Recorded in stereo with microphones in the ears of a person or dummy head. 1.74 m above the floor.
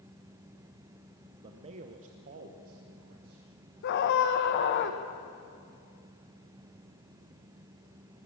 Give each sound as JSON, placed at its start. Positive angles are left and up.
{"t": 1.4, "sound": "a man speaking", "side_deg": -30, "distance_m": 0.8}
{"t": 3.8, "sound": "a scream", "side_deg": 60, "distance_m": 2.0}